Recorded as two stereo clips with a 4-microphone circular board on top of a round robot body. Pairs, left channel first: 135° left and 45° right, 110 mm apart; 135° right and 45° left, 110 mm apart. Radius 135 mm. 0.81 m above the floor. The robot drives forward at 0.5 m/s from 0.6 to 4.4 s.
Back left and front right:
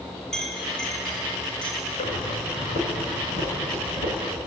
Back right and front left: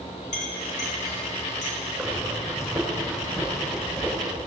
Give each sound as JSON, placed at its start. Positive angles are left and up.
{"t": 0.3, "sound": "a clink", "azimuth_deg": -140, "distance_m": 4.5}
{"t": 2.0, "sound": "breathing", "azimuth_deg": 135, "distance_m": 5.5}